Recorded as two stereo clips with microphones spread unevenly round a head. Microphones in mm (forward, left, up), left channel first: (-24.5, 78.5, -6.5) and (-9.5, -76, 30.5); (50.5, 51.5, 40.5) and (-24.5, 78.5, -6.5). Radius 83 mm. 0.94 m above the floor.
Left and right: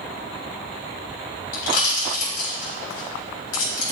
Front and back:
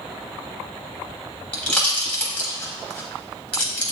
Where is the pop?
55° left, 3.5 m.